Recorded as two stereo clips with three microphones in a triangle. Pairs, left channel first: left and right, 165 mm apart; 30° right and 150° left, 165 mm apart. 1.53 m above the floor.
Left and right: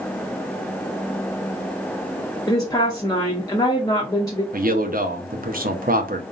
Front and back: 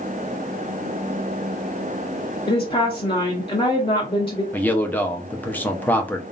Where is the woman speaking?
25° left, 0.6 m.